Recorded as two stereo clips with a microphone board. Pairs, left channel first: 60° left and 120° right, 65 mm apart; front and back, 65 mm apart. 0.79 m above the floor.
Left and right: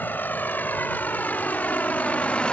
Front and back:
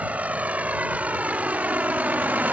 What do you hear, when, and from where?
0.0 s a vehicle: 115° left; by 2.5 s 125° left